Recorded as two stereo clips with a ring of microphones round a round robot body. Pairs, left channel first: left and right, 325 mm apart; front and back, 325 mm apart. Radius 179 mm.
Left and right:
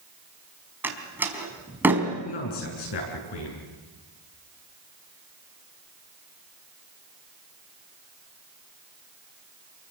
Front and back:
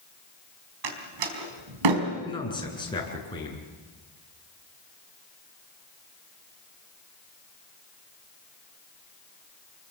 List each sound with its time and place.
0.8 s a door slam: 175° right, 4 m
2.2 s a man speaking: 75° left, 7.5 m